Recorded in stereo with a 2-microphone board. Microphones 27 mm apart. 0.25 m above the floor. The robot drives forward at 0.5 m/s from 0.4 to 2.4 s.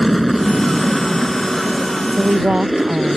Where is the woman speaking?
30° right (ahead or behind).